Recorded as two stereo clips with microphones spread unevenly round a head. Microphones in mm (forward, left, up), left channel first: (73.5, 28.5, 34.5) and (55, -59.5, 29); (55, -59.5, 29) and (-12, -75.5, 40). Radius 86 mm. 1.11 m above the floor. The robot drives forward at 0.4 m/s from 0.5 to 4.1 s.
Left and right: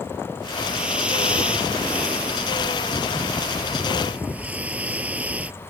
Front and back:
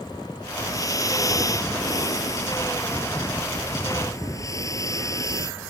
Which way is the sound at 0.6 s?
20° right.